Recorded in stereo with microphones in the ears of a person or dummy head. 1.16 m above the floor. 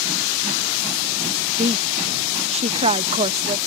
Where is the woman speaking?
35° right (ahead or behind).